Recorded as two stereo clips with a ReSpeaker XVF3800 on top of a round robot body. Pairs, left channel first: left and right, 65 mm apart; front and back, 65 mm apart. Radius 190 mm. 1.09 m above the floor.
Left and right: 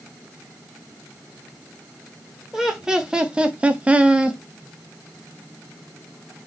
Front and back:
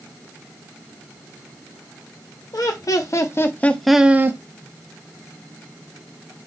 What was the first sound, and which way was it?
Laughter, 10° right.